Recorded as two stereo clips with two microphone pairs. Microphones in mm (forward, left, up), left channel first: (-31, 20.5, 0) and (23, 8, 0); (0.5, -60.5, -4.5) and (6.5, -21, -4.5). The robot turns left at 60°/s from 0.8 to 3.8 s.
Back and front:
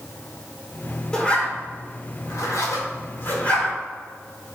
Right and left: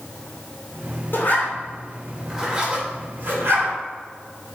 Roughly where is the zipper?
Behind right.